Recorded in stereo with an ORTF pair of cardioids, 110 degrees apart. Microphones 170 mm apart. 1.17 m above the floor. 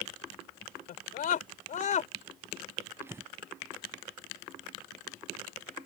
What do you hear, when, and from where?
0.9 s a scream: 60° left; by 2.1 s 45° left
3.0 s breathing: 15° right